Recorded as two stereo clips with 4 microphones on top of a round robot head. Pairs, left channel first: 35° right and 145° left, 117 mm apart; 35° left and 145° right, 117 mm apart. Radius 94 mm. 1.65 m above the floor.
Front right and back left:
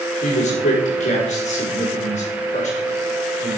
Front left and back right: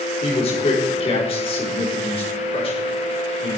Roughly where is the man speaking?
Ahead.